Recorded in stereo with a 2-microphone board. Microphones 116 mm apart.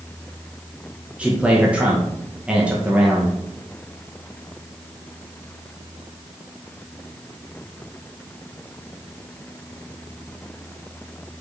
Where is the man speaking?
10° right (ahead or behind), 1.1 m.